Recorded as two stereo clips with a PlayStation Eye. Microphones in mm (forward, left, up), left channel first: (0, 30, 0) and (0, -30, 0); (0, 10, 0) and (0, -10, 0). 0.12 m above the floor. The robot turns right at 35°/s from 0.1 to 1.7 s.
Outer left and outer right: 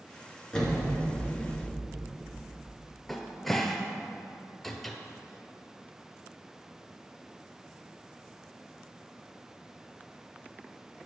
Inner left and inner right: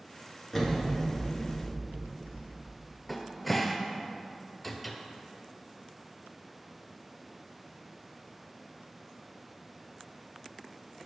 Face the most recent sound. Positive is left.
turn(degrees=5)  # may be behind; listen again after turning